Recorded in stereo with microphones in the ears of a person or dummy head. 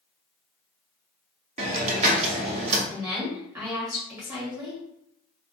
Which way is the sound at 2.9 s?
20° right (ahead or behind).